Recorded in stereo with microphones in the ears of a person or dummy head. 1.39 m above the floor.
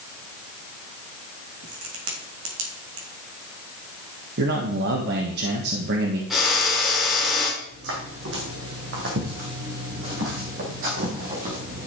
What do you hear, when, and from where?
1.6 s a crack: 70° right (ahead or behind), 2.5 m
4.4 s a man speaking: 65° right (ahead or behind), 1.8 m
6.3 s a drill: centre (ahead or behind), 3 m
7.6 s footsteps: 70° right (ahead or behind), 4 m; by 11.9 s 40° right (ahead or behind), 3 m